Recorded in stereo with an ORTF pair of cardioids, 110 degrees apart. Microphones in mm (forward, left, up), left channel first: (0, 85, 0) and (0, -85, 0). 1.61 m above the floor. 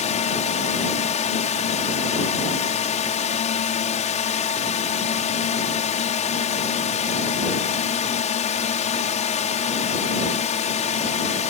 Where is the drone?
45° left.